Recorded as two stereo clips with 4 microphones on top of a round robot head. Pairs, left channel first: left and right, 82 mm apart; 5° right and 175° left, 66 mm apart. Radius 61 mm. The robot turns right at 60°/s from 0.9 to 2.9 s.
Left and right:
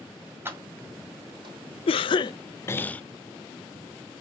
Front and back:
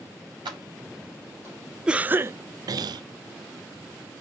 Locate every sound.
0.5 s keys jangling: 155° right, 3.5 m; by 1.6 s 115° right, 3.5 m
1.9 s a cough: 100° left, 0.6 m; by 3.0 s 160° left, 0.6 m